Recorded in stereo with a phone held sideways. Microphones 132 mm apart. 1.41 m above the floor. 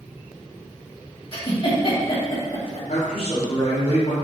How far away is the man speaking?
About 2.5 m.